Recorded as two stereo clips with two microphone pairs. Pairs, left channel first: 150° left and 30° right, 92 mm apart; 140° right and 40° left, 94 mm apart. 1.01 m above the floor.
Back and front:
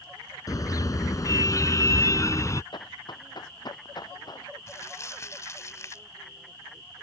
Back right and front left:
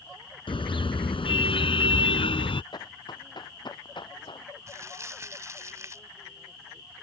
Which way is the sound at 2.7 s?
Straight behind.